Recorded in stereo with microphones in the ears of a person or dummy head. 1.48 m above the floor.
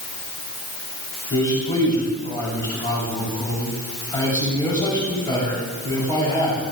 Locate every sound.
1.3 s a man speaking: 20° left (ahead or behind), 7 m